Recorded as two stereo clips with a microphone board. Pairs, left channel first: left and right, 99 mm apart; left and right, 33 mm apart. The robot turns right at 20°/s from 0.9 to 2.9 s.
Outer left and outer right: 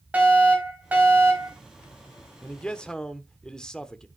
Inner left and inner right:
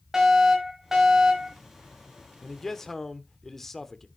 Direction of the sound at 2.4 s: 15° left (ahead or behind).